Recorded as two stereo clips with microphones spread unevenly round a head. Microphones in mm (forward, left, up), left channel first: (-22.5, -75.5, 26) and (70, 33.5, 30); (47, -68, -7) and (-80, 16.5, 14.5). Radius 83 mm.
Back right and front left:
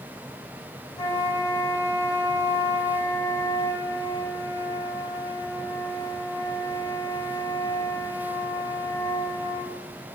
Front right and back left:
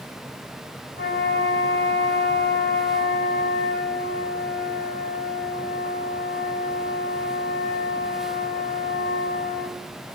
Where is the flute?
60° right, 8 m.